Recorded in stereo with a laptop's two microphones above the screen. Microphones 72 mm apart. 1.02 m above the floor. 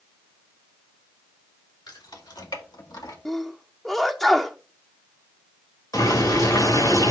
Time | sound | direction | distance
1.9 | keys jangling | 85° left | 2.5 m
3.2 | a sneeze | centre (ahead or behind) | 0.6 m
5.9 | boiling | 65° left (ahead or behind) | 3.5 m